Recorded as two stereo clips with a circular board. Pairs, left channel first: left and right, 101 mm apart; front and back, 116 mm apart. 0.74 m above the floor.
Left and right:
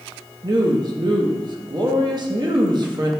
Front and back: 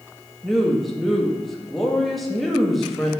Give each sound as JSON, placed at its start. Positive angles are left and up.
{"t": 0.4, "sound": "a woman speaking", "azimuth_deg": -90, "distance_m": 0.7}